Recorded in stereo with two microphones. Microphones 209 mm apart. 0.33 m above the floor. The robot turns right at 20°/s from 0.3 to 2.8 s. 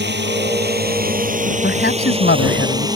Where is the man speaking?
55° left (ahead or behind); by 2.9 s 65° left (ahead or behind).